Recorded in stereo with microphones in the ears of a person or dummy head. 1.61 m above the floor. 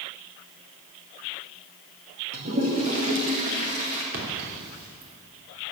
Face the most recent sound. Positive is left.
turn(degrees=-65)  # may be behind; listen again after turning